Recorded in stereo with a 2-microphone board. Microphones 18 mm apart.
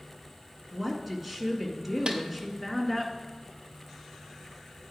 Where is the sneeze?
No sneeze in this recording.